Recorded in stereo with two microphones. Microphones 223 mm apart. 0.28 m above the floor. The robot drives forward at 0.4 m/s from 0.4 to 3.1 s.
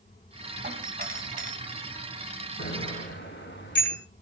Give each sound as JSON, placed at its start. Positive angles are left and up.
{"t": 0.6, "sound": "a doorbell", "side_deg": -45, "distance_m": 2.5}
{"t": 2.6, "sound": "a bicycle bell", "side_deg": 55, "distance_m": 6.5}